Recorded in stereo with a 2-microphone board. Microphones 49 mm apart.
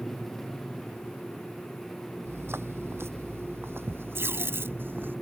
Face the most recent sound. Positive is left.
turn(degrees=-55)  # may be behind; listen again after turning